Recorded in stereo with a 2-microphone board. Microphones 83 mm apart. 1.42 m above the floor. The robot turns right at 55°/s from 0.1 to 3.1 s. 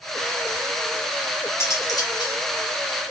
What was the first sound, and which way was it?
Cutlery clinking, 30° left.